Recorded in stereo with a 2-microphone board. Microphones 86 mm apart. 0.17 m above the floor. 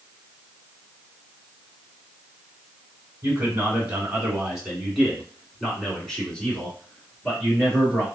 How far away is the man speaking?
About 1.8 m.